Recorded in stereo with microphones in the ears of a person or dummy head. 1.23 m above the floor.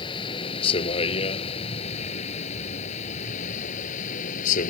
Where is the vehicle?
30° left (ahead or behind); by 4.7 s 45° left (ahead or behind).